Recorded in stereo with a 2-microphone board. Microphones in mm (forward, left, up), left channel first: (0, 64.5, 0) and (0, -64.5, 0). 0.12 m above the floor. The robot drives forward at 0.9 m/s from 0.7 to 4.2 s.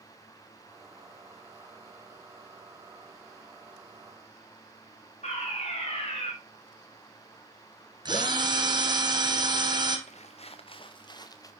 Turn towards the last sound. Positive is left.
turn(degrees=25)  # may be behind; listen again after turning